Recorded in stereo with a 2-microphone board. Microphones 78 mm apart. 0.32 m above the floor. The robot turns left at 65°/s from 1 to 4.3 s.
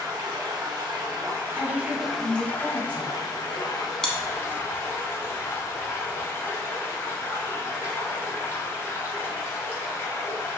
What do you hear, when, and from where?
0.0 s running water: 105° right, 0.7 m; by 10.6 s 40° left, 0.7 m
1.5 s a woman speaking: 115° left, 1.4 m; by 3.1 s 15° left, 1.4 m
4.0 s chewing: 5° left (ahead or behind), 0.6 m; by 6.3 s 25° left (ahead or behind), 0.6 m